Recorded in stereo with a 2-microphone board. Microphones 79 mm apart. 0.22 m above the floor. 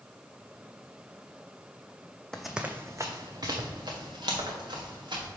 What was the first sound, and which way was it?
Running footsteps, 10° left (ahead or behind).